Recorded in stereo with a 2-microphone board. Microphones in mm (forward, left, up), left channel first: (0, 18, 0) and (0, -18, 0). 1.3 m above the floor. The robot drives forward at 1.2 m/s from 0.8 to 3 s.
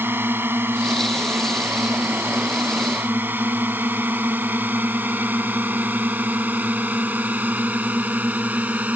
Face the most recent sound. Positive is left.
turn(degrees=-50)  # may be behind; listen again after turning